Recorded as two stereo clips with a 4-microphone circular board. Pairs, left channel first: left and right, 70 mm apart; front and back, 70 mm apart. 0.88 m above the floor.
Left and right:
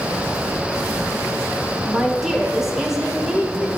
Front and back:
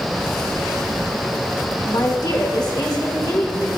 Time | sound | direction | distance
1.8 | a woman speaking | 5° right | 2 m